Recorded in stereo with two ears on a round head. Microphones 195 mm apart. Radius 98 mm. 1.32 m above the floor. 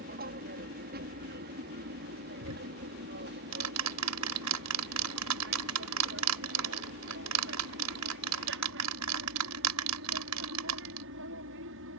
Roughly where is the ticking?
Right.